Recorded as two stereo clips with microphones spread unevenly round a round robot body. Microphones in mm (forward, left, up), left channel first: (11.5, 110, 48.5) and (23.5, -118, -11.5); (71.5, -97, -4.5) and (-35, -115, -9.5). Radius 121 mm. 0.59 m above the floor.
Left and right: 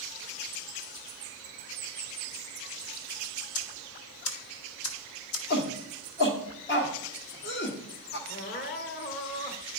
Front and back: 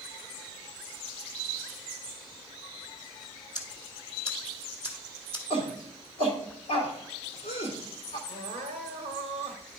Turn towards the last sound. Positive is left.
turn(degrees=150)